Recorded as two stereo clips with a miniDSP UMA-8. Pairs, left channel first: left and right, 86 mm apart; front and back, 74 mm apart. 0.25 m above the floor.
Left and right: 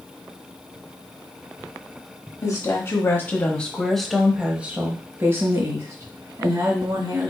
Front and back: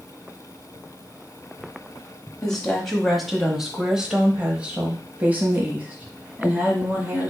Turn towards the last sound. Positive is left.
turn(degrees=-120)